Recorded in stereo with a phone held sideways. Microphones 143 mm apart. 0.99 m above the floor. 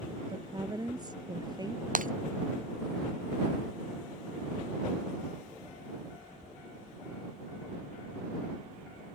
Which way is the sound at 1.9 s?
65° right (ahead or behind).